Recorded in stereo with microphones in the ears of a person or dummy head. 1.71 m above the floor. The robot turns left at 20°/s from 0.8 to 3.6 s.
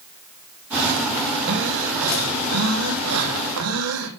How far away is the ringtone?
No ringtone in this recording.